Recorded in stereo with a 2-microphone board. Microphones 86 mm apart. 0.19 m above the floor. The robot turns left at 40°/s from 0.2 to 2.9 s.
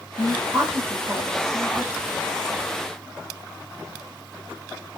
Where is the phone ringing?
No phone ringing in this recording.